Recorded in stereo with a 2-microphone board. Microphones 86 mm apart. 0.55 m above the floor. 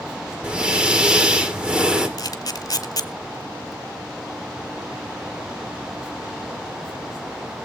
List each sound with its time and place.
0.4 s breathing: 10° right (ahead or behind), 1.9 m
2.2 s a camera shutter: 45° left (ahead or behind), 1.3 m